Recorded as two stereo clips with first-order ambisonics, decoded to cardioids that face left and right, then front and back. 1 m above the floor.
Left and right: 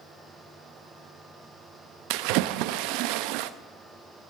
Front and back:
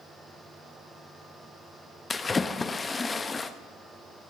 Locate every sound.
2.1 s a splash: 75° right, 0.6 m